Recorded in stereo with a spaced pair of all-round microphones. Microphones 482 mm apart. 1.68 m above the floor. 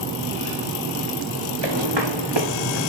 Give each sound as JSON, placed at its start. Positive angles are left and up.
{"t": 1.6, "sound": "footsteps", "side_deg": -65, "distance_m": 7.0}